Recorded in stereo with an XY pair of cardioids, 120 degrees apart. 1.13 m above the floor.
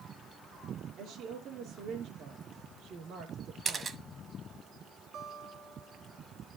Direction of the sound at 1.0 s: 65° right.